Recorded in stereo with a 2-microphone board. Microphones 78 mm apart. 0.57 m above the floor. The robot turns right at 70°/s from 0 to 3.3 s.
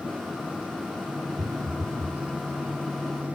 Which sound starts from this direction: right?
A phone buzzing, at 1.4 s.